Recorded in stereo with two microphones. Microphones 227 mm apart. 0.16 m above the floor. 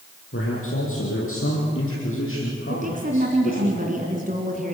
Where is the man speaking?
75° left (ahead or behind), 5 m; by 3.7 s 65° left (ahead or behind), 6.5 m.